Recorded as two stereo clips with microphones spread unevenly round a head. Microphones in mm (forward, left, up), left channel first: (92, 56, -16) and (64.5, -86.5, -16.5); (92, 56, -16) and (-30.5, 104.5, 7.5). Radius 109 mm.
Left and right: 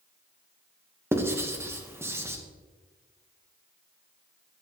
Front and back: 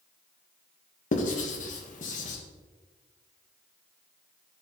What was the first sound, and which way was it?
Writing, 30° right.